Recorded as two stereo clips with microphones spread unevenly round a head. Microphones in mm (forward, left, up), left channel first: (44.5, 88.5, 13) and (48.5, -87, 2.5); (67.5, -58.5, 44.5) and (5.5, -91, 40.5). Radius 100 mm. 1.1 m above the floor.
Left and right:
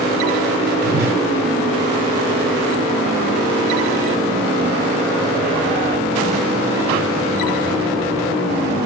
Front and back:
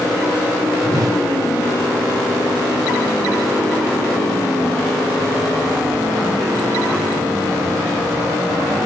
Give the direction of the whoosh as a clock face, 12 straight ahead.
4 o'clock.